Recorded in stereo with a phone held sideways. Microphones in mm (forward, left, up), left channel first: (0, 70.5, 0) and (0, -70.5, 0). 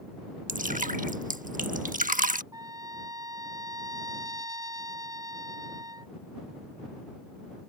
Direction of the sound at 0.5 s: 75° right (ahead or behind).